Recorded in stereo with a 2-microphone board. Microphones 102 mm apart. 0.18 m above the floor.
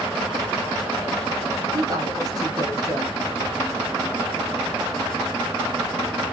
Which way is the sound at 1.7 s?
35° right (ahead or behind).